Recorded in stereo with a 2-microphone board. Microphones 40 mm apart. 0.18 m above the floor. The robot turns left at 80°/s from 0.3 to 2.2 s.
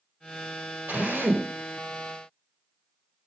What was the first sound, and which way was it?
A drill, 60° right.